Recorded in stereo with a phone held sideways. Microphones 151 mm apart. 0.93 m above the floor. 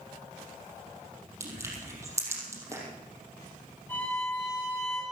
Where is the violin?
15° left (ahead or behind), 8 m.